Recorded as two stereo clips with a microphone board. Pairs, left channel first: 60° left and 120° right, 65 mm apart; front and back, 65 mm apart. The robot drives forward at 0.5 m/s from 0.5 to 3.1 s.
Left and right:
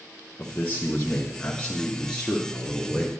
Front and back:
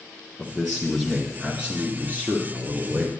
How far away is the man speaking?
About 1.3 m.